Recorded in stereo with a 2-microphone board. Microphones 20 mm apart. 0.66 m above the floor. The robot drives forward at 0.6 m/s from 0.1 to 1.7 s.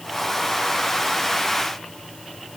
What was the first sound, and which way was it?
Only background noise.